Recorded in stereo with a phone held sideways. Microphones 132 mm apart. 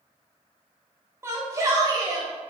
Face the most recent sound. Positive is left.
turn(degrees=-35)  # may be behind; listen again after turning